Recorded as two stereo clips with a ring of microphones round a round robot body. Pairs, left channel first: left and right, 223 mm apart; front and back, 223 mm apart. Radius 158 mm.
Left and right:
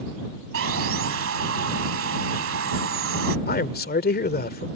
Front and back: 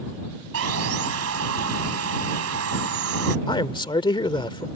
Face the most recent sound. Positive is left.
turn(degrees=65)